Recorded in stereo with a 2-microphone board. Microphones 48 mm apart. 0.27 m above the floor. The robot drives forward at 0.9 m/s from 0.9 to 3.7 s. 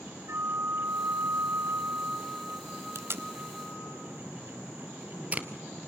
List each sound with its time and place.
0.3 s a flute: 60° right (ahead or behind), 0.8 m; by 4.0 s 15° right (ahead or behind), 2 m
3.0 s tape being pulled: 70° right (ahead or behind), 0.6 m; by 5.5 s 30° right (ahead or behind), 1.0 m